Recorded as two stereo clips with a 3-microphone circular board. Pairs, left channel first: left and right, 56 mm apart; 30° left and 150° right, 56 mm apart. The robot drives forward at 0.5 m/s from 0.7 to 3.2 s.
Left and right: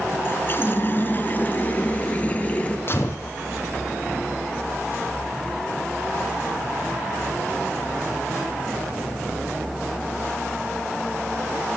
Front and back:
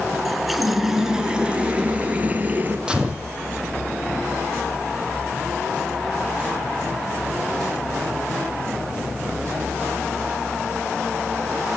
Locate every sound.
0.2 s a running tap: 125° left, 1.1 m; by 2.8 s 155° left, 1.8 m
2.9 s a gunshot: 135° left, 2 m; by 3.3 s 140° left, 2 m